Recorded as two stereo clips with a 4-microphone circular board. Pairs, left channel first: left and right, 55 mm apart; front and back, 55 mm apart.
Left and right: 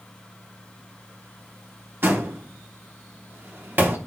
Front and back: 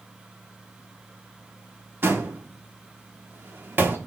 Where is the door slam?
140° right, 1.2 m.